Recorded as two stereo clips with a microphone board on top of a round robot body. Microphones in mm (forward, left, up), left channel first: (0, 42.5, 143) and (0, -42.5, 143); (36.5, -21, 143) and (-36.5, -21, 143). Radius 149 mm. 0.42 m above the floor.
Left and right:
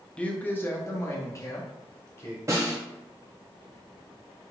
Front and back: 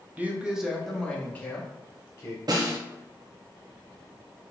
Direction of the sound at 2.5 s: 150° right.